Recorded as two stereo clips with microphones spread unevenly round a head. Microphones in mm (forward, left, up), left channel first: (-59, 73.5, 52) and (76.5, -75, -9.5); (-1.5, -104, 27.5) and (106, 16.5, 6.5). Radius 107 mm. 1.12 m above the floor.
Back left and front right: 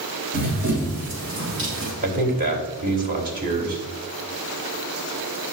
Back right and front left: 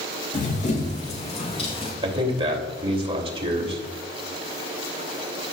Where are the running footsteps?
100° right, 3 m; by 1.9 s 80° right, 3.5 m.